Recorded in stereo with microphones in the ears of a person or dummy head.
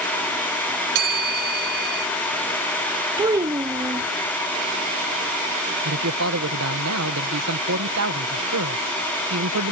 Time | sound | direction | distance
0.9 | a bell | 55° right (ahead or behind) | ?
3.2 | a child speaking | 20° right (ahead or behind) | ?
5.8 | a man speaking | 85° right | ?